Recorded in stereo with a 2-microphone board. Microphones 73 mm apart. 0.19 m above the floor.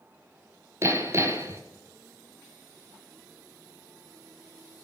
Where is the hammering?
35° right (ahead or behind), 1.7 m.